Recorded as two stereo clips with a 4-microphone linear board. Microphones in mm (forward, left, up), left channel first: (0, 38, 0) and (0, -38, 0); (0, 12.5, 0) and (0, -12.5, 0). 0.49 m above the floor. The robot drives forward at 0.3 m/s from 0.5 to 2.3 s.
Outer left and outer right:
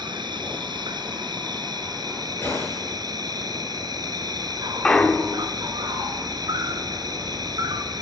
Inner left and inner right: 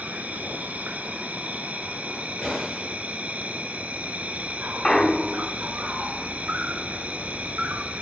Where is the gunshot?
30° left (ahead or behind), 10 m.